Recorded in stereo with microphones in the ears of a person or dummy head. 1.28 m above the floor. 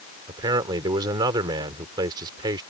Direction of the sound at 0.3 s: 20° right (ahead or behind).